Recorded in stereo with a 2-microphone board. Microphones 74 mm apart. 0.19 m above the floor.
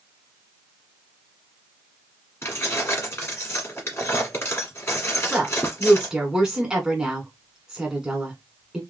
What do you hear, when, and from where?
2.4 s keys jangling: 35° left (ahead or behind), 1.7 m
5.3 s a woman speaking: 5° right (ahead or behind), 1.8 m